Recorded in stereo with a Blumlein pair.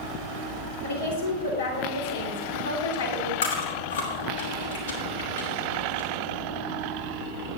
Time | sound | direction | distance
0.8 | a woman speaking | 70° left | 5.5 m
3.4 | chewing | 65° left | 5.5 m